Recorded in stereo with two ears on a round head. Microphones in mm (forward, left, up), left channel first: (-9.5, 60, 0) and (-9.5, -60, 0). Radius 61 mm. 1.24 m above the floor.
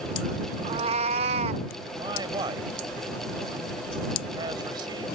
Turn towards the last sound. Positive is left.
turn(degrees=-30)  # may be behind; listen again after turning